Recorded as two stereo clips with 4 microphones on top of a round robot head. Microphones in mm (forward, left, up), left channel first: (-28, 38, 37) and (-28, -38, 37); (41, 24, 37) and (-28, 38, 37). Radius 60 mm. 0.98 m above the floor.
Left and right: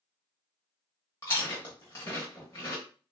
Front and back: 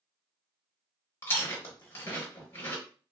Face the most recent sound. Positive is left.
turn(degrees=25)